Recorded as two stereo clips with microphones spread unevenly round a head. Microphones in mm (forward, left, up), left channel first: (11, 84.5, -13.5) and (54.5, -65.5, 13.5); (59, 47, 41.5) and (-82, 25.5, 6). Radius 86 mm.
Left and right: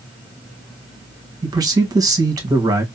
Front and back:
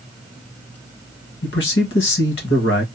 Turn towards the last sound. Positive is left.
turn(degrees=-10)